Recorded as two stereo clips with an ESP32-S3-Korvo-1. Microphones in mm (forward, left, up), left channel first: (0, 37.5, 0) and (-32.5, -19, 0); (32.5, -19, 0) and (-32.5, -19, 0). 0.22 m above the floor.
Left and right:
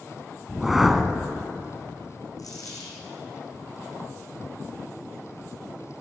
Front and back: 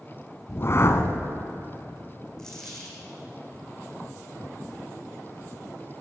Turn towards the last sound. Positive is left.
turn(degrees=80)